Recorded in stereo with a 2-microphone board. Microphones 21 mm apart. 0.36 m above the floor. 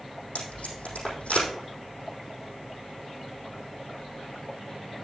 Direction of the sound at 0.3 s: 90° left.